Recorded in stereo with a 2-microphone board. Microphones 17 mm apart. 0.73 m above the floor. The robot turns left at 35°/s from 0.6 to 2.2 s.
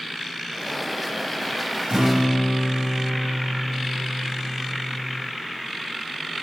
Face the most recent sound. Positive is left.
turn(degrees=-60)  # may be behind; listen again after turning